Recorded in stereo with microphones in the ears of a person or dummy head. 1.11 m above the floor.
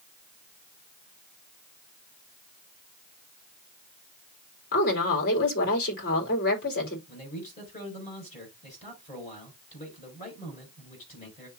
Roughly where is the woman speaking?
Left.